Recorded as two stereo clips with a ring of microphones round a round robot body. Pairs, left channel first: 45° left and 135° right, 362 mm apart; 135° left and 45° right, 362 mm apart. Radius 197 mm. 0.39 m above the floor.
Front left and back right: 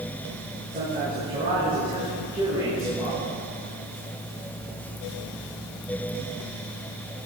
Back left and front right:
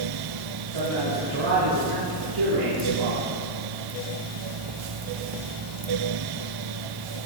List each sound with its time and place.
0.7 s a man speaking: 65° right, 6 m; by 3.3 s 55° right, 6.5 m